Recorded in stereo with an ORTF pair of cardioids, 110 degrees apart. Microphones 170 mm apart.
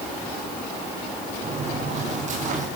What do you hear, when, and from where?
1.4 s footsteps: 45° right, 8.5 m; by 2.7 s 50° right, 8.5 m